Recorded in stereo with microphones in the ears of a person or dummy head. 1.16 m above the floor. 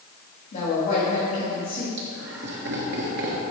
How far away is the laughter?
About 1.2 m.